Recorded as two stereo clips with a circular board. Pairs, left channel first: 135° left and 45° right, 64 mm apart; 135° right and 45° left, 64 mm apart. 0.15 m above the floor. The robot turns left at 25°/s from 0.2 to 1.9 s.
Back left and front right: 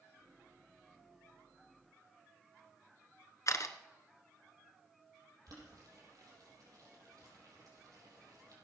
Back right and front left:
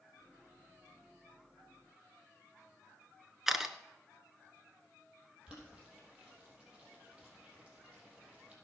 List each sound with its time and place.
3.5 s a camera shutter: 125° left, 0.8 m
5.5 s boiling: 30° right, 5 m